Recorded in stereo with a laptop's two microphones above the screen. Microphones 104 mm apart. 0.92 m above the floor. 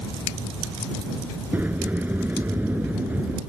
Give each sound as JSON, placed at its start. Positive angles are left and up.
{"t": 1.5, "sound": "a sliding door", "side_deg": -15}